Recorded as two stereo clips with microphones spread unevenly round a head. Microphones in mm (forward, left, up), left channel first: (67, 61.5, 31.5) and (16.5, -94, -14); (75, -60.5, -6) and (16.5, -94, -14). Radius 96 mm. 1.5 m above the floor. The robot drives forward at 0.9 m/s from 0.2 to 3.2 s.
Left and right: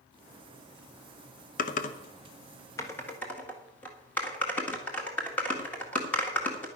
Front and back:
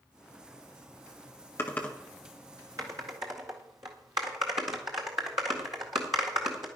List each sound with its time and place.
1.6 s typing on a keyboard: 85° left, 1.0 m; by 6.7 s 150° left, 1.7 m